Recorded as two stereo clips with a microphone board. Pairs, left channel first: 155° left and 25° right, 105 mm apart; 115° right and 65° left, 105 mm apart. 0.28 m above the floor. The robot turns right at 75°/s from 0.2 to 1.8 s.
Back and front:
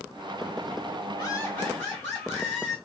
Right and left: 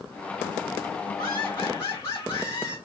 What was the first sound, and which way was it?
Laughter, 175° left.